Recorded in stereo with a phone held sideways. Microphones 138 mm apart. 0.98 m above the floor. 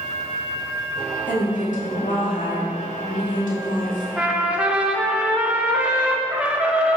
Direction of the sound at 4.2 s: 10° right (ahead or behind).